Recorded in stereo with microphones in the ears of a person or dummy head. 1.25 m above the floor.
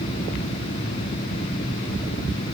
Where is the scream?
No scream in this recording.